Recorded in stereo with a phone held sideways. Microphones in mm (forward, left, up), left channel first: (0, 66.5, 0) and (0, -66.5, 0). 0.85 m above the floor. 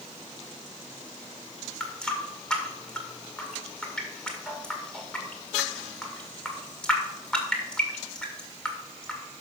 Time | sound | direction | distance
1.8 | a running tap | 5° left (ahead or behind) | 1.9 m